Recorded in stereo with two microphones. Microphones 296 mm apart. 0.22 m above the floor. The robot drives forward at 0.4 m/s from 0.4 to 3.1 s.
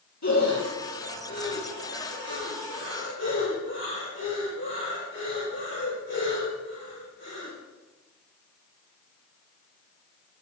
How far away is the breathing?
About 5.5 m.